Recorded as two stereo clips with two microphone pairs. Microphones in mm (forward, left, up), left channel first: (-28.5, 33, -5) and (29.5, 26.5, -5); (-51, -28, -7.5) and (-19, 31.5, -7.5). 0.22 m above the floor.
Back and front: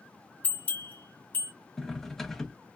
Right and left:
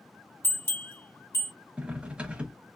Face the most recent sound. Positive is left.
turn(degrees=105)